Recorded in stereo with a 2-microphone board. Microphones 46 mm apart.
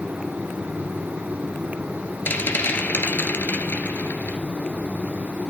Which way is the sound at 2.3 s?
50° left (ahead or behind).